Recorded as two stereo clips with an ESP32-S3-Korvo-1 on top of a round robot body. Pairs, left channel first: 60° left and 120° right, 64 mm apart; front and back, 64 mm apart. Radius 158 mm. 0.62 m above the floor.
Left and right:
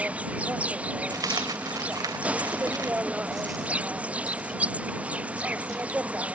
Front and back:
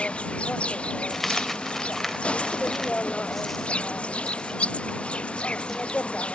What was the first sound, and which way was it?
An insect, 65° right.